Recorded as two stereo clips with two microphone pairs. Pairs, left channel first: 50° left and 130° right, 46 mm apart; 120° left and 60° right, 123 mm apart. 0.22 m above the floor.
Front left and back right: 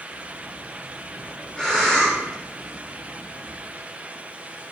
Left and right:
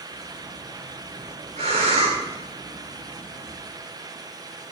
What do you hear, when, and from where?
0.1 s breathing: 25° right, 6.5 m